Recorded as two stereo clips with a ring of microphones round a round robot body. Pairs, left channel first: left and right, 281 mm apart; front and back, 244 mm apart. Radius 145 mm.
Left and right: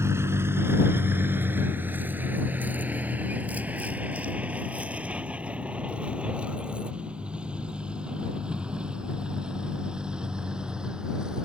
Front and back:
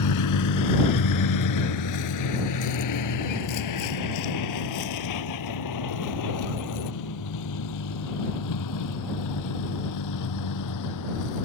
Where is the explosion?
I don't hear an explosion.